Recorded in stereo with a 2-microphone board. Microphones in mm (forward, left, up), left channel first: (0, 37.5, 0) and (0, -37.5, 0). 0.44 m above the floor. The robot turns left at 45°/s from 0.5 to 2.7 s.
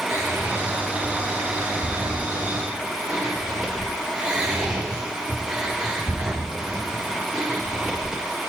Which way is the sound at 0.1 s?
45° right (ahead or behind).